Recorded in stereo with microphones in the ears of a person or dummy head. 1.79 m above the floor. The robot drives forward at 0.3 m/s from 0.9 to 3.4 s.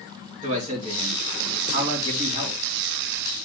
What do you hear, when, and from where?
0.4 s a man speaking: 35° right (ahead or behind), 3 m; by 2.6 s 30° right (ahead or behind), 3.5 m